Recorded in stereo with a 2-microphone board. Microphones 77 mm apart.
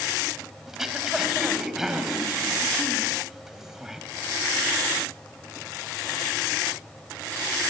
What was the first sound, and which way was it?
Throat clearing, 5° right (ahead or behind).